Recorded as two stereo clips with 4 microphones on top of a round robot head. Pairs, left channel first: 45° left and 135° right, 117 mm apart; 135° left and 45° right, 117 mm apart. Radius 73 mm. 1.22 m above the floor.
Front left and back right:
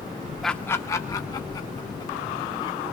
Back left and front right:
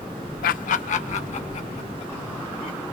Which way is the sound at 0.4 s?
135° left.